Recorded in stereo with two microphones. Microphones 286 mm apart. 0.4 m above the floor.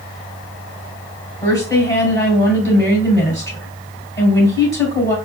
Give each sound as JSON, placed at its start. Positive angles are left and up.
{"t": 1.4, "sound": "a woman speaking", "side_deg": 15, "distance_m": 2.5}